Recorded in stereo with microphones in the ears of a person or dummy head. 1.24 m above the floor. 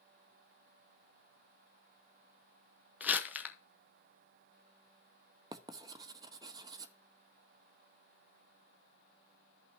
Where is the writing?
20° right (ahead or behind), 0.8 m.